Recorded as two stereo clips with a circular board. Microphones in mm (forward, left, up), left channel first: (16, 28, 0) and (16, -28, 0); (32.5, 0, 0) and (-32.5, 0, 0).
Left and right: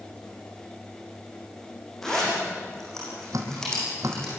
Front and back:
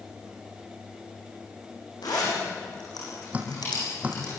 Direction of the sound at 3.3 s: 110° right.